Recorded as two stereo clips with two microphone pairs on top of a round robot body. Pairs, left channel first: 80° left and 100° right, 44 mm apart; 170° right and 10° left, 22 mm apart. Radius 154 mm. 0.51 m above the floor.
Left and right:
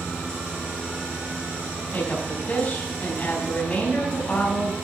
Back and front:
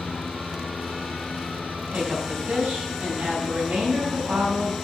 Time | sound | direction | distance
1.9 | a woman speaking | 20° left | 4.5 m